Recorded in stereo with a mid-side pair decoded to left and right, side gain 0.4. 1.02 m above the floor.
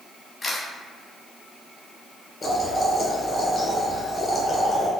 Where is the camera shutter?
40° left, 1.0 m.